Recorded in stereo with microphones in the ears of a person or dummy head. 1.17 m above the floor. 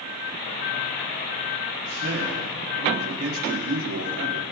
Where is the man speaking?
55° right (ahead or behind), 2 m; by 4.5 s 70° right (ahead or behind), 2.5 m.